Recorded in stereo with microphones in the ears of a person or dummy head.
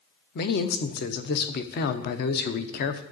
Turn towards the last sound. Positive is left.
turn(degrees=55)  # may be behind; listen again after turning